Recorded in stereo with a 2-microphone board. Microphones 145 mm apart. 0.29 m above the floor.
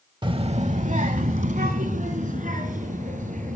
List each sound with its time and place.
0.2 s a child speaking: 30° right (ahead or behind), 0.7 m; by 3.6 s 60° right (ahead or behind), 3 m